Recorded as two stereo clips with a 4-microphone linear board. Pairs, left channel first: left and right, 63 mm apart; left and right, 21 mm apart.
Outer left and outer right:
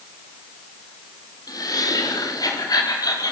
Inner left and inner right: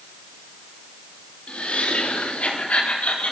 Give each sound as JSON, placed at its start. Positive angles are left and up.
{"t": 1.5, "sound": "laughter", "side_deg": 75, "distance_m": 4.5}